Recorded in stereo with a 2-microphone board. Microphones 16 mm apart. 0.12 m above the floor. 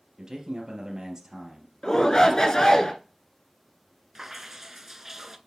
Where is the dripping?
20° right (ahead or behind), 0.5 m.